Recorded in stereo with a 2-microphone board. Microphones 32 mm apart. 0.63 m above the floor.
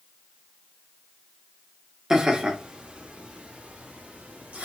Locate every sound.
2.1 s laughter: 20° right (ahead or behind), 1.0 m; by 4.7 s 50° right (ahead or behind), 2 m